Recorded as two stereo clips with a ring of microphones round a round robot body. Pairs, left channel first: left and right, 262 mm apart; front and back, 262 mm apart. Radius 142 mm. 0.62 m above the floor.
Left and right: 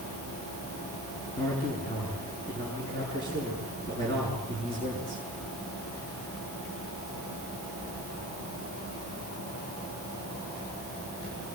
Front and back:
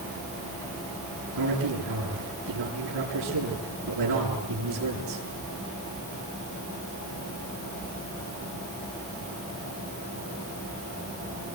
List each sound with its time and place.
1.4 s a man speaking: 165° left, 8.5 m